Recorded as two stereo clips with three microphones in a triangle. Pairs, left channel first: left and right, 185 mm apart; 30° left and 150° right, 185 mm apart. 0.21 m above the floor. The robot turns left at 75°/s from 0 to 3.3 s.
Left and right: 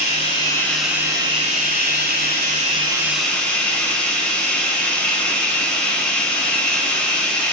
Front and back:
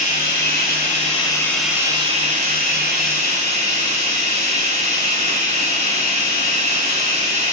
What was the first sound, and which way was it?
Running water, 60° left.